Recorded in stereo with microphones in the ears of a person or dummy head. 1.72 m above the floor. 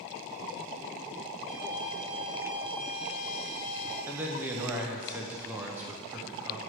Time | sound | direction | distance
1.5 | a violin | 60° right (ahead or behind) | 0.9 m
4.1 | a man speaking | 10° right (ahead or behind) | 0.5 m